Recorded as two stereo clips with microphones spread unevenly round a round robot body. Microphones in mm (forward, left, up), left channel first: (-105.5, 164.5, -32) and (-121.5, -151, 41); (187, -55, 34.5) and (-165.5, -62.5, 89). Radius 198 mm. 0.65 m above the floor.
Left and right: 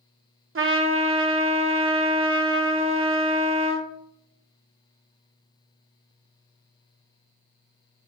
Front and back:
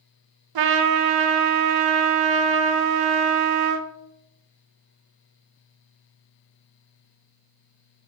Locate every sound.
0.6 s a trumpet: 150° right, 0.7 m